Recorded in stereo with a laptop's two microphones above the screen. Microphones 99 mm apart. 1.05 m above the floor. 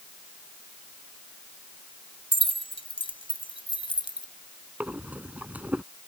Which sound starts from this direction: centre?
Breathing, at 4.8 s.